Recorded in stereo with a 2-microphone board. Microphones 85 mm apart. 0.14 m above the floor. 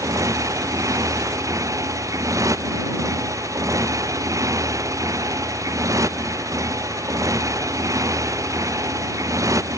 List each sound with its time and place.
0.0 s a motorcycle: 40° right (ahead or behind)